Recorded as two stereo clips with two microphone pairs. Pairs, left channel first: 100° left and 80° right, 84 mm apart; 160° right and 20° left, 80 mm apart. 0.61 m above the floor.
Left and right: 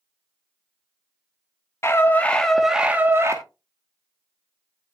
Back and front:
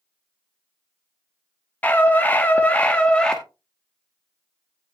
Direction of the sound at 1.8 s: 140° left.